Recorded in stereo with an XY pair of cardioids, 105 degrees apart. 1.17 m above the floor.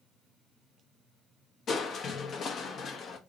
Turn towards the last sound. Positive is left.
turn(degrees=55)